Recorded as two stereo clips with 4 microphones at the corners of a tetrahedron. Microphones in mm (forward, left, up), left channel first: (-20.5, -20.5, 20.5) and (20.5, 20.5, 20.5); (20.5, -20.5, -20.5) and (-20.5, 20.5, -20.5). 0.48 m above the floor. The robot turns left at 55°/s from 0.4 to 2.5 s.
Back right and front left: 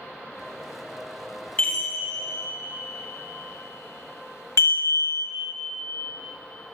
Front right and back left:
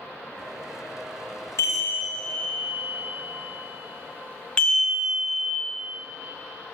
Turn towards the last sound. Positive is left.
turn(degrees=-120)